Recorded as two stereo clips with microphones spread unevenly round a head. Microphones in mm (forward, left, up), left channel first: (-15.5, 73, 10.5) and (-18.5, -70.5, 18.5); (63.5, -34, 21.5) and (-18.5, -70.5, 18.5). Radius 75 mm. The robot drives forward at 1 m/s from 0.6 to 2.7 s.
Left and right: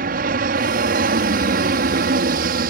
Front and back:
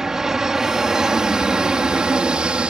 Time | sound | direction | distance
0.0 | an aircraft | 75° right | ?